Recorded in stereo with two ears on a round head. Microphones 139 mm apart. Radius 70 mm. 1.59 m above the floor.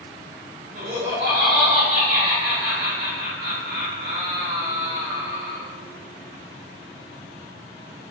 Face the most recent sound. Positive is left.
turn(degrees=-65)  # may be behind; listen again after turning